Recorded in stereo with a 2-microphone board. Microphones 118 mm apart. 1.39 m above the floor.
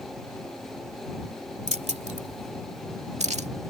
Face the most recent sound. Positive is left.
turn(degrees=-70)  # may be behind; listen again after turning